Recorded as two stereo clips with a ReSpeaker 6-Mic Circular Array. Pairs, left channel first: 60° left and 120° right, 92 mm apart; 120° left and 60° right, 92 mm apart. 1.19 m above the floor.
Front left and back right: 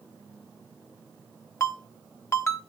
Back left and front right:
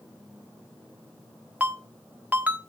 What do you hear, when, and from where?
1.6 s a ringtone: 10° left, 0.9 m